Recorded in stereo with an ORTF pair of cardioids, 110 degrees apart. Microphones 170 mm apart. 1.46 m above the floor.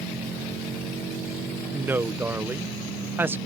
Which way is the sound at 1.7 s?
10° right.